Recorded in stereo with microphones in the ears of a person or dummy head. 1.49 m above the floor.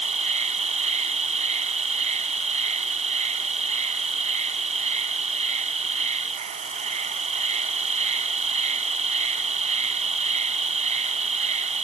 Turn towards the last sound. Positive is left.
turn(degrees=-35)  # may be behind; listen again after turning